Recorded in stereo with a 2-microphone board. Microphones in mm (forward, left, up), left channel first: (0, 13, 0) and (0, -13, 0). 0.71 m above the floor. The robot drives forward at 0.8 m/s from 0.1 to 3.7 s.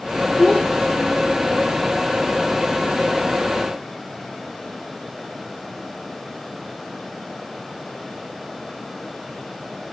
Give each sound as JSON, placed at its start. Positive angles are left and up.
{"t": 0.4, "sound": "a child speaking", "side_deg": 50, "distance_m": 1.4}